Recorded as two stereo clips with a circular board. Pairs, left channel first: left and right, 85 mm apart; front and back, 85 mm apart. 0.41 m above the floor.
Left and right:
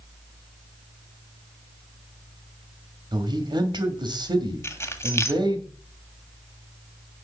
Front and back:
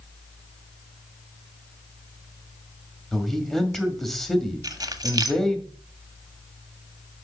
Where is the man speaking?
85° right, 2 m.